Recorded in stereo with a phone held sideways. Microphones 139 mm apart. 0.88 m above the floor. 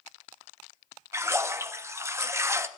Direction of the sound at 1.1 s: 20° right (ahead or behind).